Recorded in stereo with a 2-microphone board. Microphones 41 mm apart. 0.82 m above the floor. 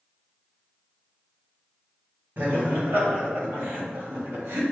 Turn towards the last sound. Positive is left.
turn(degrees=-65)  # may be behind; listen again after turning